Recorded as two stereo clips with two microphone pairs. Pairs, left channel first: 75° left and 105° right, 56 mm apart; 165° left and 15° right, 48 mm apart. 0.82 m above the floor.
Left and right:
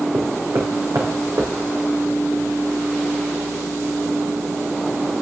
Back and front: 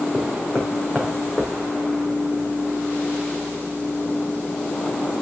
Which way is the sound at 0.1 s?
125° right.